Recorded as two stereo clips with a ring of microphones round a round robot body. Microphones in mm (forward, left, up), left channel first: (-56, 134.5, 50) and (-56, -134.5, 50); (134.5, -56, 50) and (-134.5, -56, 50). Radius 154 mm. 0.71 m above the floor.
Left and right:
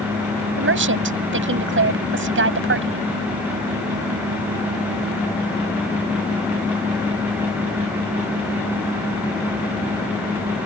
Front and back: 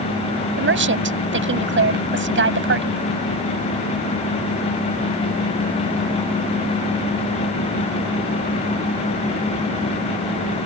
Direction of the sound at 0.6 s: 135° right.